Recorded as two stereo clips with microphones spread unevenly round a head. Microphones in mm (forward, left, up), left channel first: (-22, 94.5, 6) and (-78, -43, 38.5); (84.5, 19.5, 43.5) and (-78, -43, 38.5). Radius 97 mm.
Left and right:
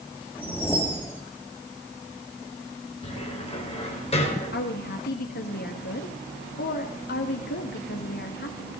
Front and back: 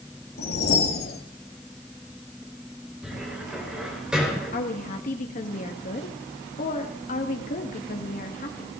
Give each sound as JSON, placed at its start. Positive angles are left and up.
{"t": 0.4, "sound": "a whoosh", "azimuth_deg": -15, "distance_m": 2.0}
{"t": 3.0, "sound": "a cupboard door", "azimuth_deg": 115, "distance_m": 4.5}
{"t": 4.5, "sound": "a woman speaking", "azimuth_deg": 70, "distance_m": 1.6}